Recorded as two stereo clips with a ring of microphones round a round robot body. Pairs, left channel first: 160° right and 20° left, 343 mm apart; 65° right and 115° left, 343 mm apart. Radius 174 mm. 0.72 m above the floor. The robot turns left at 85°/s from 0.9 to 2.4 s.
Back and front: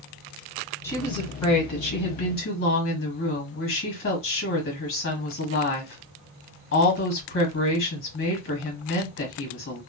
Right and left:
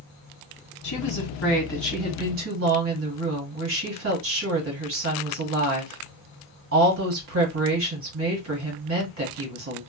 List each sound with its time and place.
0.8 s a woman speaking: 75° right, 1.4 m; by 9.8 s 155° left, 1.4 m